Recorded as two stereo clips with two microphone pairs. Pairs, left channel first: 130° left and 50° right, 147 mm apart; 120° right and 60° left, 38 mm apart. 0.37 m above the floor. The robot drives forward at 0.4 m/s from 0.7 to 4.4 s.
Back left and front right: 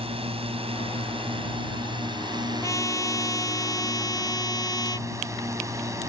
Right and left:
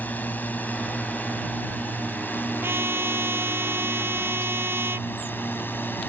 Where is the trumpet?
65° left; by 5.1 s 70° left.